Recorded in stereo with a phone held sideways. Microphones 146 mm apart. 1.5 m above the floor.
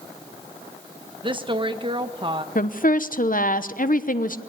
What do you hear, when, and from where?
1.2 s a woman speaking: 35° right (ahead or behind), 1.3 m
2.5 s a woman speaking: 65° left (ahead or behind), 1.0 m